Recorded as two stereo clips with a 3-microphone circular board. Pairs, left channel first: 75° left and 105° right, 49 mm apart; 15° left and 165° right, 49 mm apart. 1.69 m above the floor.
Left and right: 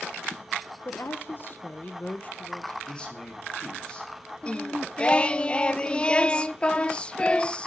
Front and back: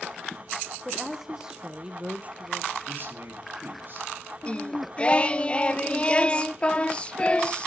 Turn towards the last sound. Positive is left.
turn(degrees=40)